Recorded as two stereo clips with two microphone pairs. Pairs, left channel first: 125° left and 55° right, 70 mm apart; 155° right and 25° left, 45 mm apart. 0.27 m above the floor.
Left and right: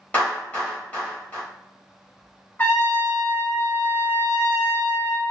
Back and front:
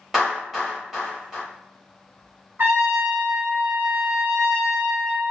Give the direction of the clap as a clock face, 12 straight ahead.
9 o'clock.